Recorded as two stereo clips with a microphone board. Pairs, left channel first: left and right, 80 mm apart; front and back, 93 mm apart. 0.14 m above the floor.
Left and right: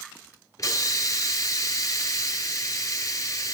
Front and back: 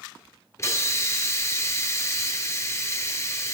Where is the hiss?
50° left, 0.7 m.